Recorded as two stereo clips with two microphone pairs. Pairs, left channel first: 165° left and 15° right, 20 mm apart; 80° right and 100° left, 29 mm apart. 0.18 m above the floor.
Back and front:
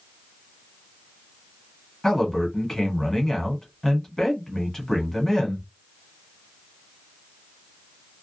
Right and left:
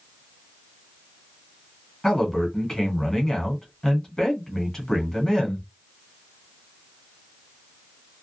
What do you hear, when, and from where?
2.0 s a man speaking: 145° right, 1.3 m